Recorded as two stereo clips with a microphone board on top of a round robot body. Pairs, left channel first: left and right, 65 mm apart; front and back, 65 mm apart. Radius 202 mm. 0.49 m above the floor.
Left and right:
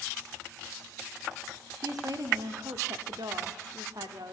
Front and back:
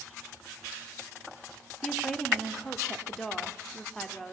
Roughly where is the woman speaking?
Right.